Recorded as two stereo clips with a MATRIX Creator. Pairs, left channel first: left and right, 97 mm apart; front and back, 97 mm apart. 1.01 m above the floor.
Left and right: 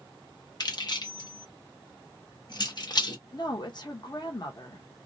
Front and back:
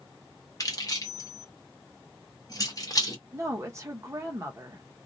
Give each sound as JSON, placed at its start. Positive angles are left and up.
{"t": 0.6, "sound": "keys jangling", "azimuth_deg": 50, "distance_m": 0.8}
{"t": 3.3, "sound": "a woman speaking", "azimuth_deg": 125, "distance_m": 0.9}